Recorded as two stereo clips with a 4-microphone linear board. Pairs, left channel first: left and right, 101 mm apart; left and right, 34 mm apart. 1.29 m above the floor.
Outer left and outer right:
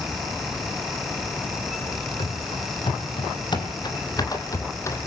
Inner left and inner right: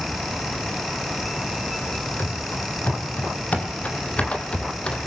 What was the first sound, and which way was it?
Running footsteps, 60° left (ahead or behind).